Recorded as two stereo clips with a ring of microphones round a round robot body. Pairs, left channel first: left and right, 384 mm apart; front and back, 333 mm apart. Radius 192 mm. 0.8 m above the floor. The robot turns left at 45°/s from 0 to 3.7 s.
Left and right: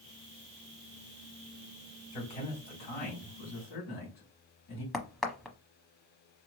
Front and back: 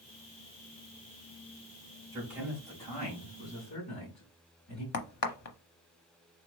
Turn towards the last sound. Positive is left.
turn(degrees=0)